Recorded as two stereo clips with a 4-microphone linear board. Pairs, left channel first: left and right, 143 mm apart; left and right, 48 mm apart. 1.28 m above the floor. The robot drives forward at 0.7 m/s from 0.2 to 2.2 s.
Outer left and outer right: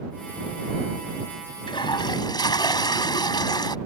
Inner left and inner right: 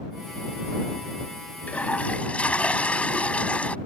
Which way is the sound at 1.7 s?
35° left (ahead or behind).